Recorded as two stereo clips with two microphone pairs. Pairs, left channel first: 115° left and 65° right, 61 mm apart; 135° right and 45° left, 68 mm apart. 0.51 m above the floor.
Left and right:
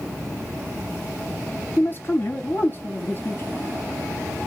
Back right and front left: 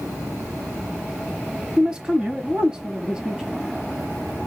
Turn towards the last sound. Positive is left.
turn(degrees=120)